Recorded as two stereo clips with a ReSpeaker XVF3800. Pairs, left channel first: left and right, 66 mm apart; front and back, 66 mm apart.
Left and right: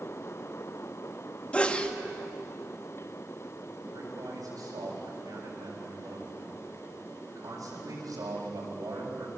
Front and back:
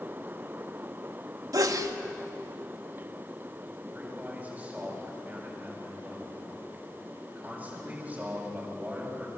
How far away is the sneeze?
About 1.8 m.